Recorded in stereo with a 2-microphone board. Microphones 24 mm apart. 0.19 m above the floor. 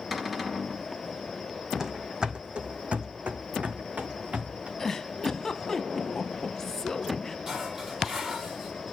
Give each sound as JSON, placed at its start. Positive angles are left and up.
{"t": 0.1, "sound": "a cupboard door", "side_deg": -10, "distance_m": 1.3}
{"t": 1.8, "sound": "running footsteps", "side_deg": -20, "distance_m": 0.8}
{"t": 4.8, "sound": "a giggle", "side_deg": 15, "distance_m": 0.6}
{"t": 7.5, "sound": "dishes clattering", "side_deg": -20, "distance_m": 4.0}